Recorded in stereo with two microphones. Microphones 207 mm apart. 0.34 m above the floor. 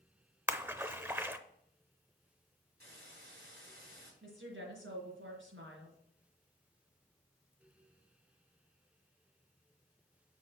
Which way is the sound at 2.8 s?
50° right (ahead or behind).